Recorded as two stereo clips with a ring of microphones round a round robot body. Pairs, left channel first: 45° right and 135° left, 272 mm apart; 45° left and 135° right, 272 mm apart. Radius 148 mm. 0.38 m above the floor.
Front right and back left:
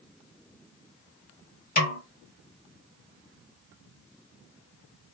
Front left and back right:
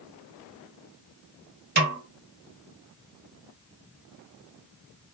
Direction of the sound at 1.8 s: 95° right.